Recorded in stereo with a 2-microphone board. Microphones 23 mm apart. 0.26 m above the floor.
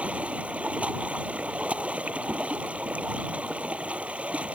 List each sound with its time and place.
0.0 s running water: 80° right